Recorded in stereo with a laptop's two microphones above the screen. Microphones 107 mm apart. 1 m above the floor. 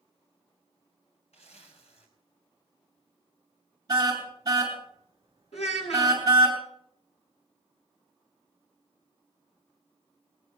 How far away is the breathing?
I don't hear breathing.